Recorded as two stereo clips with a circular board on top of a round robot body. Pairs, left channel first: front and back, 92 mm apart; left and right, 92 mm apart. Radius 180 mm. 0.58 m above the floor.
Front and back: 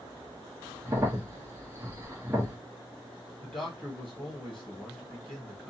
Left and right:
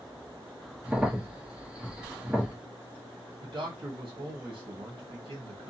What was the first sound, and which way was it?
A crack, 160° right.